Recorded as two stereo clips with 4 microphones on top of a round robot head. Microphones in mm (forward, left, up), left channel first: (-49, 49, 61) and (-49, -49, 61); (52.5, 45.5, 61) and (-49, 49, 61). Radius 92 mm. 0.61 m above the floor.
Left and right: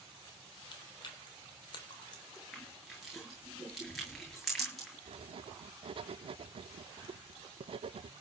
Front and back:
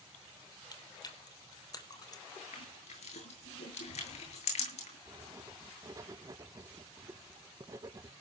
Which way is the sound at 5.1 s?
120° right.